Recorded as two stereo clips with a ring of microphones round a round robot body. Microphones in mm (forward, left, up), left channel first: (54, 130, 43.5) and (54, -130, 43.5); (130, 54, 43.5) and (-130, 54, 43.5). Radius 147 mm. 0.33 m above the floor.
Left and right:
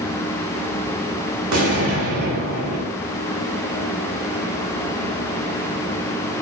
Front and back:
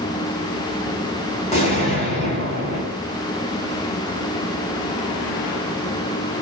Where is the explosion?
65° right, 1.1 m.